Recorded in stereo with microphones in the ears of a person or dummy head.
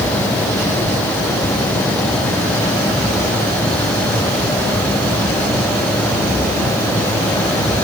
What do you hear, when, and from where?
Only background noise.